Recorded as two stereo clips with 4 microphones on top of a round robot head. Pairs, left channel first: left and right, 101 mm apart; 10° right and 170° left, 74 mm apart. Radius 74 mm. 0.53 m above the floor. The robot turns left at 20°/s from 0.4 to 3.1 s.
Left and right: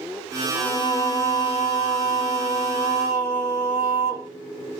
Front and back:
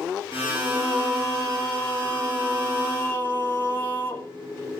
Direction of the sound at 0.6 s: 90° left.